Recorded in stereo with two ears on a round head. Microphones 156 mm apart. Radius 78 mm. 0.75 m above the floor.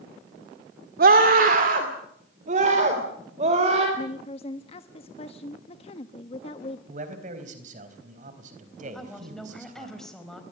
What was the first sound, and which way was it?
A scream, 55° right (ahead or behind).